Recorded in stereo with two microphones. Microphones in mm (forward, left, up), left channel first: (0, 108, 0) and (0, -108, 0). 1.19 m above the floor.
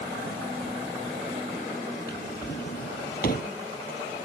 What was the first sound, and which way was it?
A drawer, 45° left (ahead or behind).